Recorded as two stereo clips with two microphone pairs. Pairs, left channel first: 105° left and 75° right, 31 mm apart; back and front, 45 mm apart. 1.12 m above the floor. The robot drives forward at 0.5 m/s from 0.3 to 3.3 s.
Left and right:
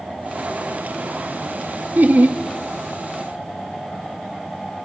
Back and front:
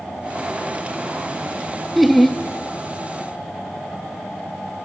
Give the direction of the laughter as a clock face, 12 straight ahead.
3 o'clock.